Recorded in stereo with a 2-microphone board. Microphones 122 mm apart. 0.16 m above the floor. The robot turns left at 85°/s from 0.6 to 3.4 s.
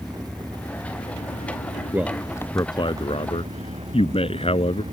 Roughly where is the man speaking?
Behind.